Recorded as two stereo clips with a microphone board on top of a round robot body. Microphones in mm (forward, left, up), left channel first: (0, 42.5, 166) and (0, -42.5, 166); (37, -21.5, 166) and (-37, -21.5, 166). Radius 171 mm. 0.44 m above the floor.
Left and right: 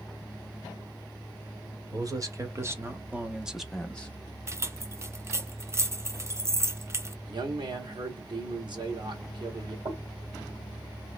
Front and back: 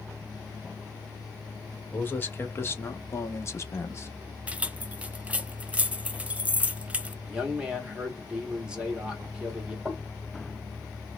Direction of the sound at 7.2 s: 105° right.